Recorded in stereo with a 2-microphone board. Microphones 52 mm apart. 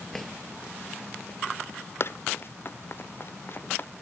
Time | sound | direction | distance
0.1 | a drawer | 5° left (ahead or behind) | ?
2.0 | running footsteps | 50° left (ahead or behind) | ?